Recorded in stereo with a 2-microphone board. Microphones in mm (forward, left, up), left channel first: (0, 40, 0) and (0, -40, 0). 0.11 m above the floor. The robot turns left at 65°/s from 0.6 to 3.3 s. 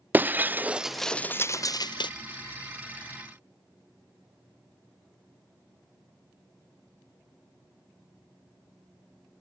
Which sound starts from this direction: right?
Breaking glass, at 0.1 s.